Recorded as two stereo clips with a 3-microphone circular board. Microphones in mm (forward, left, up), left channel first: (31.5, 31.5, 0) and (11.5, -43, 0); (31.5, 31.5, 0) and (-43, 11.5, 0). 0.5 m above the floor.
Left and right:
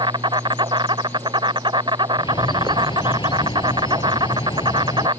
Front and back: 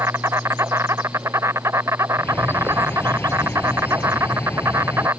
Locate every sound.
0.0 s an insect: 110° right
2.2 s a bird: 75° left